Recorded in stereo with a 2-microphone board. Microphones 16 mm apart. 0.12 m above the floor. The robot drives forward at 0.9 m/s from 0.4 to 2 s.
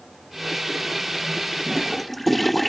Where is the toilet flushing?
5° left (ahead or behind).